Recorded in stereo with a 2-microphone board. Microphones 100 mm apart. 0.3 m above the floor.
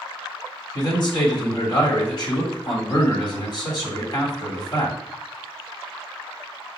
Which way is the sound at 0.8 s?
50° left (ahead or behind).